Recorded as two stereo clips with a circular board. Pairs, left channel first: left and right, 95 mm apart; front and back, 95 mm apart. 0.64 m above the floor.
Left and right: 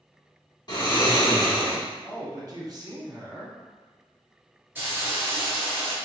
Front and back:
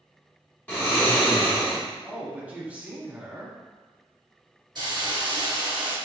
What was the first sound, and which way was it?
Snoring, 65° left.